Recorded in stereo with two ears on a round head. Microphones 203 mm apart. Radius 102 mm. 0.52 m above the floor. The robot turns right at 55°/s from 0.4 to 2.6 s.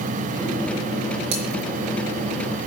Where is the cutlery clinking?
80° right, 4.5 m; by 1.5 s 70° right (ahead or behind), 4.5 m.